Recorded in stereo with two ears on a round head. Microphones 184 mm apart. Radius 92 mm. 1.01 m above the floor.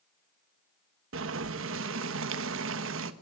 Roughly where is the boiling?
Right.